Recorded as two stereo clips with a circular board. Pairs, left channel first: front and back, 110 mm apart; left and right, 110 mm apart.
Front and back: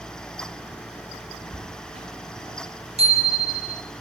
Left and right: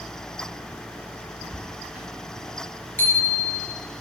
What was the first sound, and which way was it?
Footsteps, 170° right.